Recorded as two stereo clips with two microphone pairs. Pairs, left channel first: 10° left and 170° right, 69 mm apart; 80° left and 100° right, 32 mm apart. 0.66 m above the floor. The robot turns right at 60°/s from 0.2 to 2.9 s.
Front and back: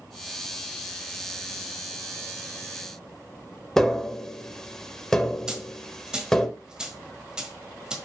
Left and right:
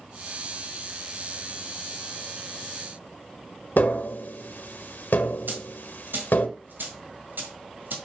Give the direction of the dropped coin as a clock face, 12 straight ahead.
3 o'clock.